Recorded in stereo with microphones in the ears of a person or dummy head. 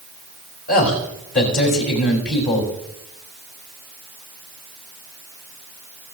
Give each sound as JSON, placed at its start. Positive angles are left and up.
{"t": 0.7, "sound": "a man speaking", "side_deg": 50, "distance_m": 3.0}